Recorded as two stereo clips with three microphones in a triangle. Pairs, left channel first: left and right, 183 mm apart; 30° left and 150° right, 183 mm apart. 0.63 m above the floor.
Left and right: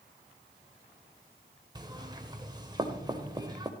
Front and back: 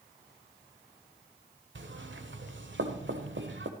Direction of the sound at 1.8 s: 160° right.